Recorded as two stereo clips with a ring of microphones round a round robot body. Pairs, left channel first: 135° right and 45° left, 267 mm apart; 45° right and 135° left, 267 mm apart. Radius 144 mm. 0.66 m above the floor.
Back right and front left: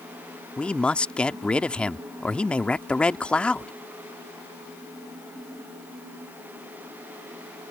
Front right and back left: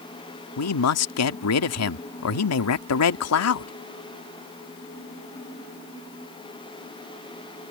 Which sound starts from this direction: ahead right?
A man speaking, at 0.6 s.